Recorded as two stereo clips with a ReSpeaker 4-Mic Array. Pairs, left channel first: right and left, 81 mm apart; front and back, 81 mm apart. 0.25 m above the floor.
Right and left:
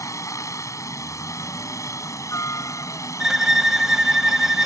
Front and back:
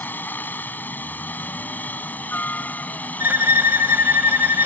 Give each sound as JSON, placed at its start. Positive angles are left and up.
{"t": 0.0, "sound": "a helicopter", "azimuth_deg": -60}
{"t": 3.2, "sound": "a violin", "azimuth_deg": 170}